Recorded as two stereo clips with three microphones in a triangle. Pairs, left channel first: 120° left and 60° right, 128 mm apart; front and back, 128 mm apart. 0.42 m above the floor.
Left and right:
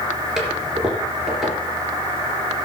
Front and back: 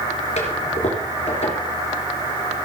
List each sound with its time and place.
0.4 s a toilet flushing: 25° left, 3.5 m